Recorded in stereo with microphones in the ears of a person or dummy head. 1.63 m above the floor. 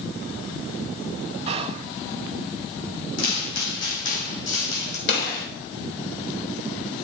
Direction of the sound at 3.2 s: 35° left (ahead or behind).